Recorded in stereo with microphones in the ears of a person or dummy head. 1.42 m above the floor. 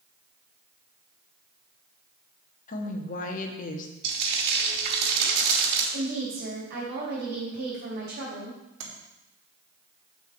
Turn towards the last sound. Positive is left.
turn(degrees=-70)  # may be behind; listen again after turning